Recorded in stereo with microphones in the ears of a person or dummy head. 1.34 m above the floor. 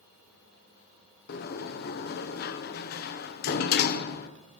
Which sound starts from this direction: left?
A sliding door, at 1.3 s.